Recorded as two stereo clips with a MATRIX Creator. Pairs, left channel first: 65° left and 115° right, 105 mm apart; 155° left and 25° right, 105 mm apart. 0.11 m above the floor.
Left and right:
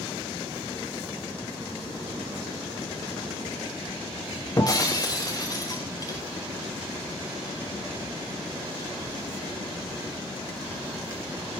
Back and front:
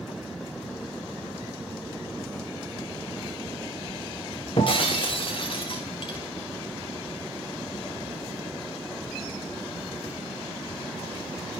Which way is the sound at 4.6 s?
120° left.